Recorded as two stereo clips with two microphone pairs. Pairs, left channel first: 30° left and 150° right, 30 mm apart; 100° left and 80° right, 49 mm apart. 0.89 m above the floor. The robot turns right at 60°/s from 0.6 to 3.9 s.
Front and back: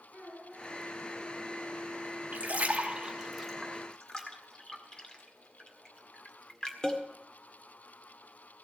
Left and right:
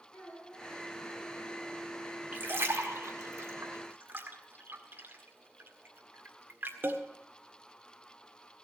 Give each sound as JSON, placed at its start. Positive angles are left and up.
{"t": 0.1, "sound": "a child speaking", "azimuth_deg": -140, "distance_m": 7.5}
{"t": 2.3, "sound": "a splash", "azimuth_deg": -130, "distance_m": 1.7}